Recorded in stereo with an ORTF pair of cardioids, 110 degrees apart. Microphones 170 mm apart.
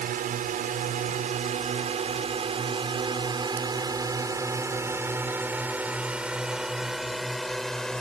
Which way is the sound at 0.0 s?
55° right.